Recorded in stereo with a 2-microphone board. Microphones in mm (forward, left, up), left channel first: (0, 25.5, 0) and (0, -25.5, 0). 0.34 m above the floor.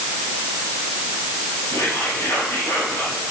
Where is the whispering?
80° left, 5.5 m.